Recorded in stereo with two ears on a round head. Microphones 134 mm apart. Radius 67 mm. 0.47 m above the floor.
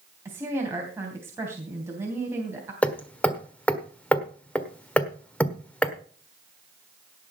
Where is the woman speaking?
15° right (ahead or behind), 3 m.